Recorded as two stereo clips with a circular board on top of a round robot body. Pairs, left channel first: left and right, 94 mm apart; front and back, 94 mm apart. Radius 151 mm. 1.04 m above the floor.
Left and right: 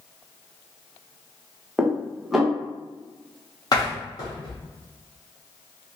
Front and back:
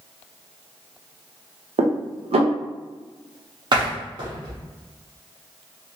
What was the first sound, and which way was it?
Dishes clattering, 175° right.